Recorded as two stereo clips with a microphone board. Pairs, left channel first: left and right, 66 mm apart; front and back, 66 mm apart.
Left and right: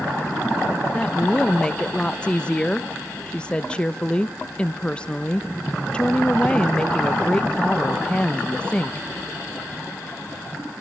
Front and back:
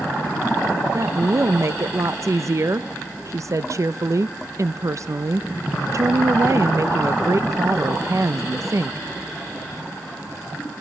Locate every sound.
0.9 s a woman speaking: 160° left, 0.6 m